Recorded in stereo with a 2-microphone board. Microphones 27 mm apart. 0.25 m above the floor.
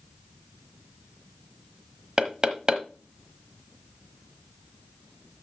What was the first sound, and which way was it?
Knocking, 30° right (ahead or behind).